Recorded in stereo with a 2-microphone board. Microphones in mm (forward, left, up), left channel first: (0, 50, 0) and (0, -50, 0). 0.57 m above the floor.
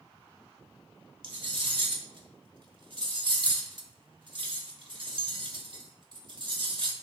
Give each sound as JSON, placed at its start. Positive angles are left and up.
{"t": 1.2, "sound": "cutlery clinking", "side_deg": -55, "distance_m": 1.1}